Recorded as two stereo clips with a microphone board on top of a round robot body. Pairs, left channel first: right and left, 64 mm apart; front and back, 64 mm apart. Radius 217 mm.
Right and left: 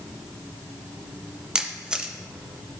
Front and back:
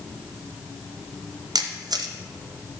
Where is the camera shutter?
170° left, 0.7 m.